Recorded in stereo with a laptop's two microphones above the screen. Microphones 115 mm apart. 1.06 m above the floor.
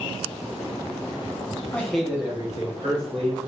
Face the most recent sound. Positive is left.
turn(degrees=-60)  # may be behind; listen again after turning